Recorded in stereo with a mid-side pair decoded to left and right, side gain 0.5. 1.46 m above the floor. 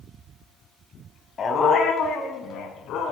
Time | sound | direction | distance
1.4 | a dog barking | 45° left | 3.5 m